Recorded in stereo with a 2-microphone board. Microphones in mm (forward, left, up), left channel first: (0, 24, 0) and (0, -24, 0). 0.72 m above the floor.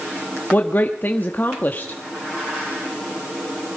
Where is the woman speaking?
40° left (ahead or behind), 0.9 m.